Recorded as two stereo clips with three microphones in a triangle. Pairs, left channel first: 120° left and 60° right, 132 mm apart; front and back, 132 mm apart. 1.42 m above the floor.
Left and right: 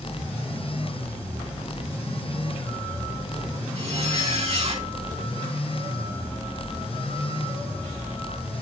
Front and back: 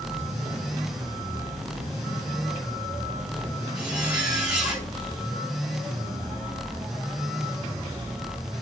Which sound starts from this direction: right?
A zipper, at 3.8 s.